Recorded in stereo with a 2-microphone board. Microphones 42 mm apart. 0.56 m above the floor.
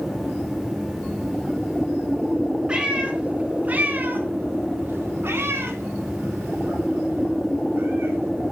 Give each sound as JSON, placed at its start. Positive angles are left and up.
{"t": 2.7, "sound": "a cat meowing", "side_deg": -20, "distance_m": 1.5}